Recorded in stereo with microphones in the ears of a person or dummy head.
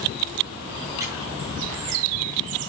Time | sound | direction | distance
1.0 | a squeak | 15° right (ahead or behind) | 6.5 m